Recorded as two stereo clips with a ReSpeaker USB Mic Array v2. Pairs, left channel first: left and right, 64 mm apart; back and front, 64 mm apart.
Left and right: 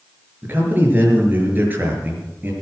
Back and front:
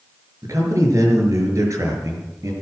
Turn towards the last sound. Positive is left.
turn(degrees=-30)